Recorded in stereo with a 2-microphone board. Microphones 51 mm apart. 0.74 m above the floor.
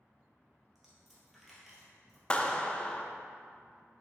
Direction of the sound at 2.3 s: 20° left (ahead or behind).